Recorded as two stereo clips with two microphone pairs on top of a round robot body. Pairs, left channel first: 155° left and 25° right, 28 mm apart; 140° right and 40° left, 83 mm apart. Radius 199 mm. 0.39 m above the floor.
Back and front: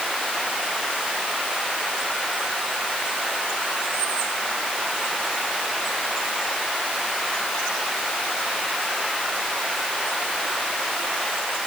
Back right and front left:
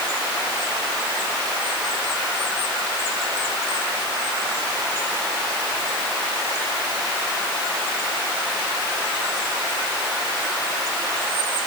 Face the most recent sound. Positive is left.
No sound to turn to.